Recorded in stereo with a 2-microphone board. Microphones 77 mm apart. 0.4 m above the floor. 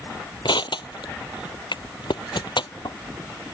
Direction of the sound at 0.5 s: 80° left.